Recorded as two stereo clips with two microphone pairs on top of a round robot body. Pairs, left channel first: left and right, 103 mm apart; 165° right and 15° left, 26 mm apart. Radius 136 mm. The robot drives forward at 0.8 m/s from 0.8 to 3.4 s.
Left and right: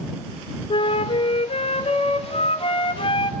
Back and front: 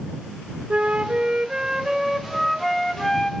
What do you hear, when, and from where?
0.7 s a flute: 60° left, 1.7 m; by 3.3 s 130° left, 1.8 m